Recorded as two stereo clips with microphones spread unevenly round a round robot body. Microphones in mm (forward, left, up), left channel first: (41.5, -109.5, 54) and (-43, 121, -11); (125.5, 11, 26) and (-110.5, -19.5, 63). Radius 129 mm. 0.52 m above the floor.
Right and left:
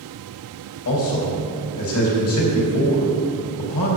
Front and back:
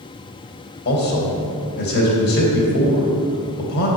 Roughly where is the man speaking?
Ahead right.